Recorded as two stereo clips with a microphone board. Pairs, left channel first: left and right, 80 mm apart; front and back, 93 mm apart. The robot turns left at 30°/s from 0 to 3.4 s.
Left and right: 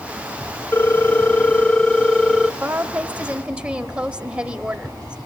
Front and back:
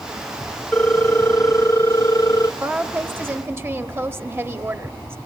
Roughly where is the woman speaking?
Behind right.